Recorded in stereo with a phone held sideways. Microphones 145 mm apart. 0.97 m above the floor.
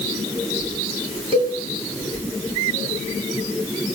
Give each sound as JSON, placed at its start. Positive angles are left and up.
{"t": 1.3, "sound": "a cowbell", "side_deg": -35, "distance_m": 4.5}